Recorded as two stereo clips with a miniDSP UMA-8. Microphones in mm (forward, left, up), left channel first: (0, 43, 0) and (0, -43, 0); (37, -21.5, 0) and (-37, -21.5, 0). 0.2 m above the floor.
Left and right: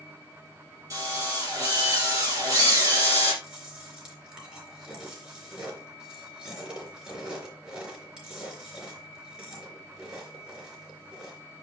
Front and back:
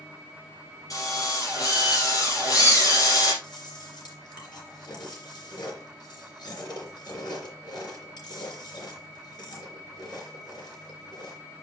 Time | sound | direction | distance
0.9 | a drill | 40° right | 5 m
3.4 | chewing | 10° right | 3.5 m